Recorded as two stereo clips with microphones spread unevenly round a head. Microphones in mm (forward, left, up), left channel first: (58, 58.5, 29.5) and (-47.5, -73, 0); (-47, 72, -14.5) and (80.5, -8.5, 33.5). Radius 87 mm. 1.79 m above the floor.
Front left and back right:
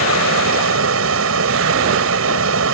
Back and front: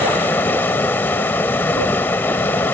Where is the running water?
125° right.